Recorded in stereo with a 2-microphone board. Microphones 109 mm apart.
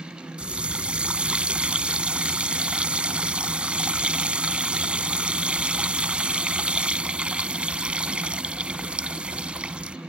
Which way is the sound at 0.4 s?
10° right (ahead or behind).